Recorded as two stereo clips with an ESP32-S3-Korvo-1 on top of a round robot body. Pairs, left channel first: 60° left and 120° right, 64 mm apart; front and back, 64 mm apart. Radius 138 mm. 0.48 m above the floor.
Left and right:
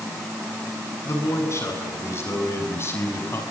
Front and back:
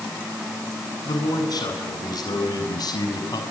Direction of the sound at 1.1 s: 10° left.